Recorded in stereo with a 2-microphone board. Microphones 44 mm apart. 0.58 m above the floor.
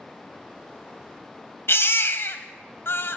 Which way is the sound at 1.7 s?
60° left (ahead or behind).